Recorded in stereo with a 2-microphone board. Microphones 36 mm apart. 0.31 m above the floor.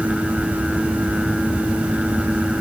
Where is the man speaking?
I don't hear a man speaking.